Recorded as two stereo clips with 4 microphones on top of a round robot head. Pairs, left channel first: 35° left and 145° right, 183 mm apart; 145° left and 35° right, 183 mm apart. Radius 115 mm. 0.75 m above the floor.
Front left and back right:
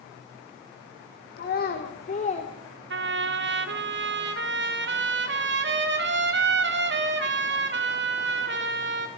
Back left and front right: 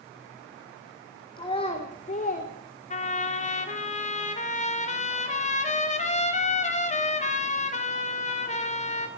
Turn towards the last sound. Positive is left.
turn(degrees=-165)